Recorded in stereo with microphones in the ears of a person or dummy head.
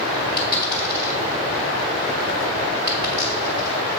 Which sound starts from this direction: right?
A dropped coin, at 0.4 s.